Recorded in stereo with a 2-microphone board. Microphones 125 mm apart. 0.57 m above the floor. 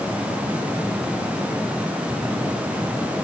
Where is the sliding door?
No sliding door in this recording.